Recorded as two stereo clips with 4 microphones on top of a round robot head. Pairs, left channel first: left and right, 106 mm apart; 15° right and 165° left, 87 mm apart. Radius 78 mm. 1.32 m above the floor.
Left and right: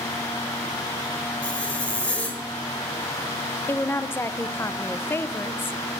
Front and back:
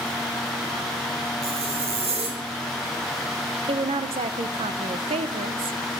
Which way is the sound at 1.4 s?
170° left.